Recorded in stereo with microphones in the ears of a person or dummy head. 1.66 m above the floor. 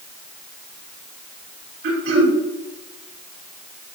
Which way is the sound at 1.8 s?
65° right (ahead or behind).